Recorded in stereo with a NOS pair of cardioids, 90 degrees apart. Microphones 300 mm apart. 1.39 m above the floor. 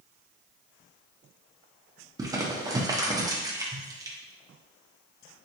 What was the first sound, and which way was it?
Crumpling, 10° right.